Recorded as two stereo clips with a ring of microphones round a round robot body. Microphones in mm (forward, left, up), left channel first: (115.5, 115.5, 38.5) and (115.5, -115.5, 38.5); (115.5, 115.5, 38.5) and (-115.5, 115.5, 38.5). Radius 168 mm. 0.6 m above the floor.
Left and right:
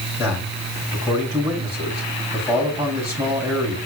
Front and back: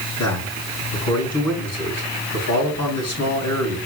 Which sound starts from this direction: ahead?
A man speaking, at 0.2 s.